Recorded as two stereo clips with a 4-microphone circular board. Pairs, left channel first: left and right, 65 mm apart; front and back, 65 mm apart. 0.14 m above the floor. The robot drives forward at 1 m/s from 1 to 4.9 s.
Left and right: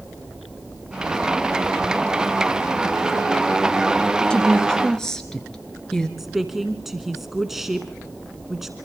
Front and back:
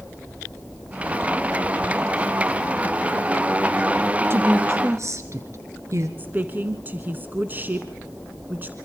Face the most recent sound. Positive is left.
turn(degrees=-175)